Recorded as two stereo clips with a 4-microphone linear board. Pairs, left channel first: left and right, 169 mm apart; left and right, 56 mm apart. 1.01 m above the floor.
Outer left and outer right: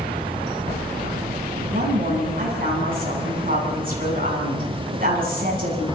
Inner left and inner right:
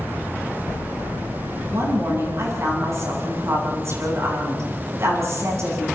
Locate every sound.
1.7 s a woman speaking: 60° right (ahead or behind), 8.5 m